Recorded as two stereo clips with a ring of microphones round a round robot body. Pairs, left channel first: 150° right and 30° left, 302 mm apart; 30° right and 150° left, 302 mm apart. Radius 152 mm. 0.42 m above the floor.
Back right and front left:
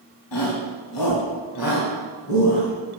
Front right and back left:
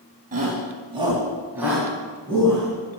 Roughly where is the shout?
Behind right.